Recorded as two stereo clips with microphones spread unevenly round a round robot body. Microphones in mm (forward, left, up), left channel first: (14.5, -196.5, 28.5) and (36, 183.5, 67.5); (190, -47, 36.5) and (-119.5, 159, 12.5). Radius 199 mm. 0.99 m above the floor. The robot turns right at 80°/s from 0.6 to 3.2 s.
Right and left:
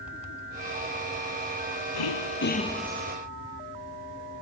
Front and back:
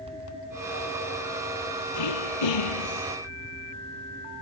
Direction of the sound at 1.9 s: 70° right.